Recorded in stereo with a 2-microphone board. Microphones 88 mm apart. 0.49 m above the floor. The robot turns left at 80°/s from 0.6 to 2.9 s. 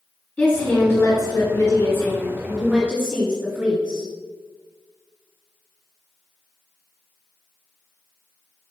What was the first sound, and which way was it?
A woman speaking, 150° left.